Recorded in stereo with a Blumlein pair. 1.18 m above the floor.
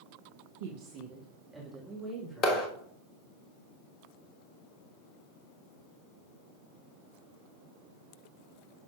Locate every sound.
0.6 s a woman speaking: 55° right, 1.1 m; by 2.7 s 10° left, 3 m
2.4 s a clap: 30° left, 1.4 m